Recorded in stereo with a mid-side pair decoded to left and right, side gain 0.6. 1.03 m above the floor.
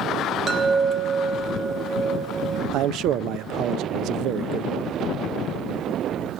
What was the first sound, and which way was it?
A chime, 35° right.